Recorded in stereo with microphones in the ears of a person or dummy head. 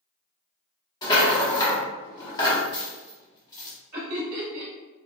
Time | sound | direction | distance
1.0 | a rattle | 20° left (ahead or behind) | 0.8 m
3.9 | laughter | 40° right (ahead or behind) | 0.8 m